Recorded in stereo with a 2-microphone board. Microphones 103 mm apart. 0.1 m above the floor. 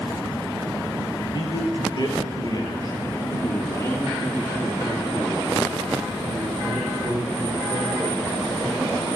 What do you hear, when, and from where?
1.3 s a man speaking: 50° left (ahead or behind), 2.5 m; by 9.1 s 5° left (ahead or behind), 5.5 m